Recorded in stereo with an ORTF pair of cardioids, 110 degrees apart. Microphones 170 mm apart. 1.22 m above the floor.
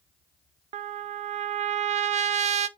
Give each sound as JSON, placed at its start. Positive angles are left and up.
{"t": 0.7, "sound": "a trumpet", "azimuth_deg": -45, "distance_m": 0.6}